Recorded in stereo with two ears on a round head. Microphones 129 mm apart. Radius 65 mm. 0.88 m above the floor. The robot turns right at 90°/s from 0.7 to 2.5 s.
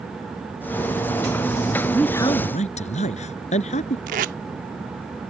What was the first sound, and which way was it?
A man speaking, 5° right.